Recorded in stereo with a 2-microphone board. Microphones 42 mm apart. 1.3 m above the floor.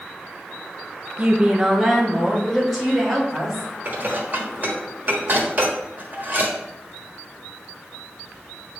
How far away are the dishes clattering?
About 1.3 m.